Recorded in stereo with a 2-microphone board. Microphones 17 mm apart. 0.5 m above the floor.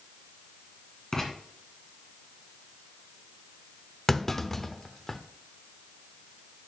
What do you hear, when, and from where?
1.1 s writing: 30° left (ahead or behind), 2.5 m
4.1 s a clunk: 20° left (ahead or behind), 0.6 m